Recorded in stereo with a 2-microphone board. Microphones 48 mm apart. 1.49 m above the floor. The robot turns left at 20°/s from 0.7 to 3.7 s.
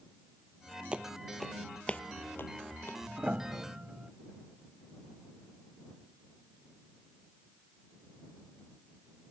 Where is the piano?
30° right (ahead or behind); by 4.1 s 20° right (ahead or behind).